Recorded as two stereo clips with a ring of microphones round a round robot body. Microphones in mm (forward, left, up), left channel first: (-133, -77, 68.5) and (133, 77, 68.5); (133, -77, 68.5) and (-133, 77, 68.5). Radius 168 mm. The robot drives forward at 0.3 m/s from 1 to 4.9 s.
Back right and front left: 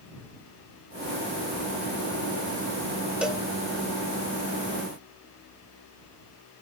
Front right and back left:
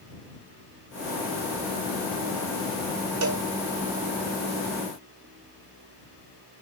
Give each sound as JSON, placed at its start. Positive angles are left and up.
{"t": 3.2, "sound": "a cowbell", "azimuth_deg": 115, "distance_m": 0.8}